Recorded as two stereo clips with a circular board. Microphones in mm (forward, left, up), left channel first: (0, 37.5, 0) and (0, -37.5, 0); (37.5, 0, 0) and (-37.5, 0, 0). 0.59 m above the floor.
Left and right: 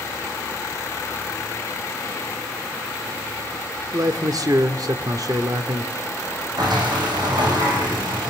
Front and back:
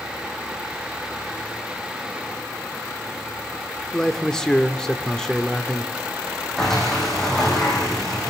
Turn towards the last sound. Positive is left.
turn(degrees=-85)